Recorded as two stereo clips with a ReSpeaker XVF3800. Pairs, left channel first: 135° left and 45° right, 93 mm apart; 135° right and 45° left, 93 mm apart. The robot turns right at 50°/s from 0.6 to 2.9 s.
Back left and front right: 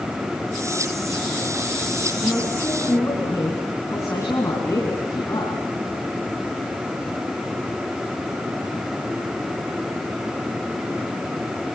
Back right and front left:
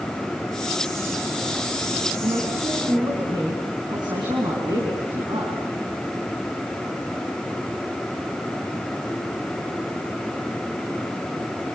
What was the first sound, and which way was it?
A woman speaking, 45° left.